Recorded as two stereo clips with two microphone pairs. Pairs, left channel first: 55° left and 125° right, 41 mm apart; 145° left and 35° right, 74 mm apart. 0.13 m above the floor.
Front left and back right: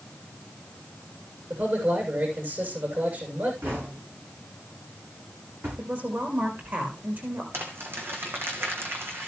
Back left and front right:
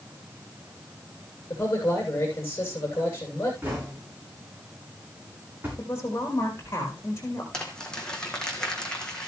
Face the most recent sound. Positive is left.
turn(degrees=-135)